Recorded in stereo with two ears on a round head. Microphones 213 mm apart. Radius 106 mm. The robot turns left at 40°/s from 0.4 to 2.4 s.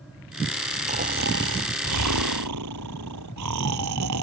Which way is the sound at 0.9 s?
30° right.